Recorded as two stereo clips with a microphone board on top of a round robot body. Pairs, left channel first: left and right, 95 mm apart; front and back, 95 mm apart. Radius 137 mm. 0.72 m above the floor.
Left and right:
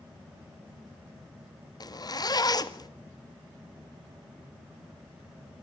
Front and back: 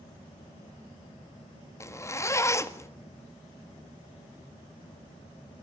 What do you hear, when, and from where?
1.8 s a zipper: 55° left, 1.8 m